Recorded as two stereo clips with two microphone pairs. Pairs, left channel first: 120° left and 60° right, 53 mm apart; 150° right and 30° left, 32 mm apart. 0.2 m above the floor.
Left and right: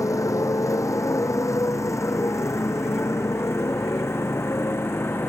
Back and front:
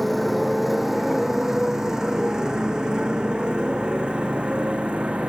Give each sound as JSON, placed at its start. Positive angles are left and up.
{"t": 0.0, "sound": "a motorcycle", "azimuth_deg": 125}